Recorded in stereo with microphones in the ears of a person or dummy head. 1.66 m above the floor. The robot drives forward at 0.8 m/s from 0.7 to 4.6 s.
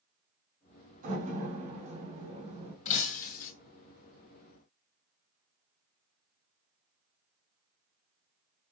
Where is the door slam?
50° right (ahead or behind), 3.5 m; by 2.8 s 40° right (ahead or behind), 4.5 m.